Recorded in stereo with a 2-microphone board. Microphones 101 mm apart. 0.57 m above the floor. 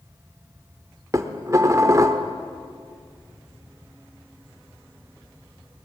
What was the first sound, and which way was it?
Dishes clattering, 35° right (ahead or behind).